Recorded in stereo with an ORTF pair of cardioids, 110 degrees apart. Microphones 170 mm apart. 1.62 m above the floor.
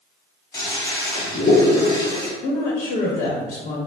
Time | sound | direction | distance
0.5 | a toilet flushing | 25° left | 1.4 m
2.4 | a woman speaking | 55° left | 1.0 m